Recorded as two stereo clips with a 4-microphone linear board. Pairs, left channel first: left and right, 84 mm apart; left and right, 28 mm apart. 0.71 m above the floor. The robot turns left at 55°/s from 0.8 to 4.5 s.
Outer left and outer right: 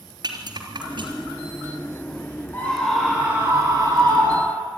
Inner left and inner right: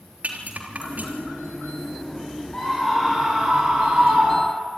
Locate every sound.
0.2 s a rattle: 60° right (ahead or behind), 3.5 m; by 1.4 s 85° right, 3.5 m
2.5 s a scream: 30° left, 5.5 m; by 4.8 s 80° right, 5.5 m